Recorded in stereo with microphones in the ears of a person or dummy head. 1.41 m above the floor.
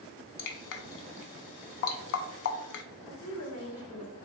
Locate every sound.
0.4 s dripping: 60° left (ahead or behind), 0.5 m
3.1 s a woman speaking: 70° left (ahead or behind), 1.9 m